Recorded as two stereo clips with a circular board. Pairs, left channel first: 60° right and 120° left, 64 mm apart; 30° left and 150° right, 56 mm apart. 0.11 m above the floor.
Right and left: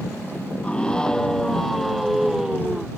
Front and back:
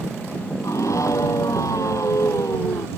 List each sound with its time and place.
0.6 s a scream: 15° left; by 2.9 s 40° left